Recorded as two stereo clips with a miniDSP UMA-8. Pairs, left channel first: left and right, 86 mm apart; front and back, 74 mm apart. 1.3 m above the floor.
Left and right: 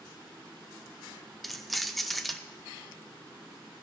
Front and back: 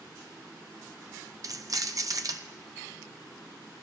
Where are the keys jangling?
Straight behind, 0.6 m.